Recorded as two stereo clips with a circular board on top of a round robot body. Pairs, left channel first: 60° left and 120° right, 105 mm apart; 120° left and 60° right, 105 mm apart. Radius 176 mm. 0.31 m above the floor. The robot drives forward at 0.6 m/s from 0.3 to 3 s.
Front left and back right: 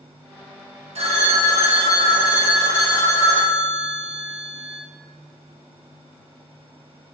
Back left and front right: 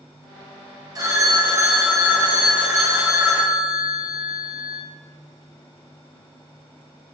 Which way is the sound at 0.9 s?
115° right.